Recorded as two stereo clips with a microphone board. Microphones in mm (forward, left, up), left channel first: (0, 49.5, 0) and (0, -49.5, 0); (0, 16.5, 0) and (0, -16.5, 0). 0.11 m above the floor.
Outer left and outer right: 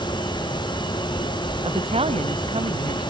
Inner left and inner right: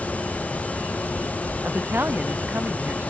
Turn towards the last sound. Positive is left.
turn(degrees=-80)